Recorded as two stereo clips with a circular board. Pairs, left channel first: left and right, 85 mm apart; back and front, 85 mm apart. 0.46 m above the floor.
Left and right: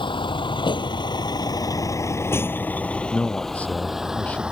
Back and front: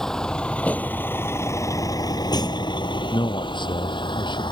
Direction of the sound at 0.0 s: 95° left.